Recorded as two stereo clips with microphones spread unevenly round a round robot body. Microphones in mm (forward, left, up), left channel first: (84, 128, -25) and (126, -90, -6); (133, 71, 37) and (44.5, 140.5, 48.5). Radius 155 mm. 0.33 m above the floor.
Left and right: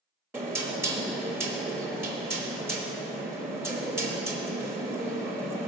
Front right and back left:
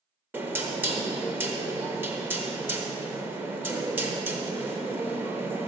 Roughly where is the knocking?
Behind.